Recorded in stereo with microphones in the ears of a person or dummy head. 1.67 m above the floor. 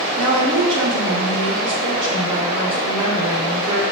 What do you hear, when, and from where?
0.2 s a woman speaking: 30° right (ahead or behind), 1.7 m